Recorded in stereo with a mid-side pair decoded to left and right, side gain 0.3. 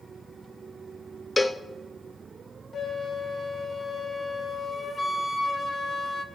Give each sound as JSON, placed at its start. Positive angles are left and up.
{"t": 1.4, "sound": "a cowbell", "azimuth_deg": 25, "distance_m": 0.7}
{"t": 2.7, "sound": "a flute", "azimuth_deg": 50, "distance_m": 1.8}